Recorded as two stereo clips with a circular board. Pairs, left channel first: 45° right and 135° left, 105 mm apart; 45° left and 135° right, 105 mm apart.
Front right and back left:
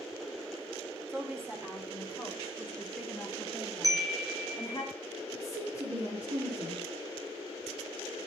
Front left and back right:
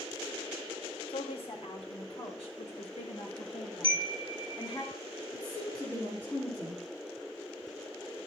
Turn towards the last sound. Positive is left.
turn(degrees=115)